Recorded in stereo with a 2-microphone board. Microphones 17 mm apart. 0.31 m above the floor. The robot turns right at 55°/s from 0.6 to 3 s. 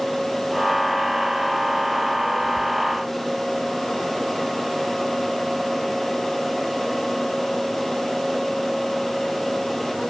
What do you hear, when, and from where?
Only background noise.